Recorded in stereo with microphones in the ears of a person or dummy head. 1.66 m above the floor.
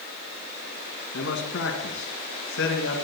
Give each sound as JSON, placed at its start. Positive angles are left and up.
{"t": 1.1, "sound": "a man speaking", "side_deg": 70, "distance_m": 2.0}